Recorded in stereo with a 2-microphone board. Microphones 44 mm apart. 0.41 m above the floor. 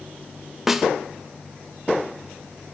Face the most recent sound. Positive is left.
turn(degrees=-10)  # may be behind; listen again after turning